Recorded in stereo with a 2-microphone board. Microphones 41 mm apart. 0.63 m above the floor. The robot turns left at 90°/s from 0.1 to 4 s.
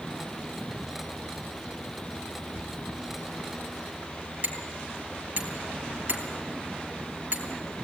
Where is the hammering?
45° right (ahead or behind), 3.5 m.